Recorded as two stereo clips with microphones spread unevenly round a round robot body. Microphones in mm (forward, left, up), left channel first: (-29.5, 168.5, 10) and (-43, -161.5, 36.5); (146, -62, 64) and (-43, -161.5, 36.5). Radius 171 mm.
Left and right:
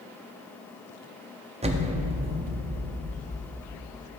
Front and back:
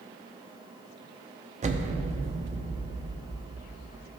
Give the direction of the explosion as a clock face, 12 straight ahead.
5 o'clock.